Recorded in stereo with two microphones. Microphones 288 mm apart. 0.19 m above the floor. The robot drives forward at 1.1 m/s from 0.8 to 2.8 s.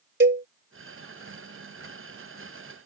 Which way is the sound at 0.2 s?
40° right (ahead or behind).